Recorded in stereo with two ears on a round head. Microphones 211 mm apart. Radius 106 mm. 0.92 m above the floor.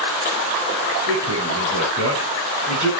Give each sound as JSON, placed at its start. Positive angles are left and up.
{"t": 1.1, "sound": "a man speaking", "side_deg": -70, "distance_m": 7.0}